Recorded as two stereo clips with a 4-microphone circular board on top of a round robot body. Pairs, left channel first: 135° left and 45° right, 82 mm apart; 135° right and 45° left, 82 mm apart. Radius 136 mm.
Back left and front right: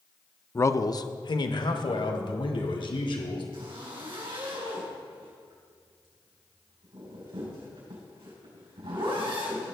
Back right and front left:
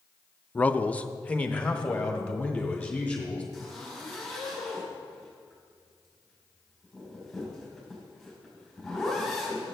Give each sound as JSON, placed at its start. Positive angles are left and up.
{"t": 0.6, "sound": "a man speaking", "azimuth_deg": 170, "distance_m": 0.5}
{"t": 3.5, "sound": "a zipper", "azimuth_deg": -45, "distance_m": 4.5}